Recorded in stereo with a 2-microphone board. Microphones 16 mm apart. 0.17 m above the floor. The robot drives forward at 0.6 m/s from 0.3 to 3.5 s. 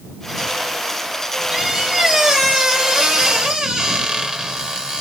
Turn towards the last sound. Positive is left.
turn(degrees=-60)  # may be behind; listen again after turning